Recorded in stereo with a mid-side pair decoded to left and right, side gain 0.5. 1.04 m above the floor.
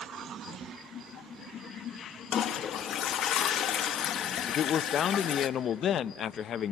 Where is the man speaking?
55° left, 0.6 m.